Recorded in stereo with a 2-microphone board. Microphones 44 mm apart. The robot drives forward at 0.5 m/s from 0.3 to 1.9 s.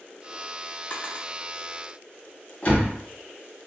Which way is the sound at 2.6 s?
35° left (ahead or behind).